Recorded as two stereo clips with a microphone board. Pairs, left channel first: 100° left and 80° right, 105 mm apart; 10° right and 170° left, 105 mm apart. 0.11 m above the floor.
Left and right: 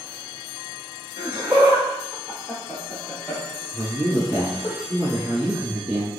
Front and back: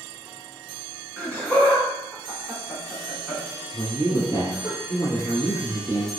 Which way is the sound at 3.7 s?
20° right.